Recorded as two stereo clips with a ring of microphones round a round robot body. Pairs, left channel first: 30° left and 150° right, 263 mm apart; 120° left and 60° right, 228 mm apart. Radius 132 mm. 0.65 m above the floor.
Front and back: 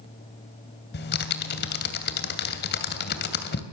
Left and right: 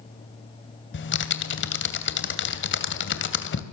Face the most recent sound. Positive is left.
turn(degrees=85)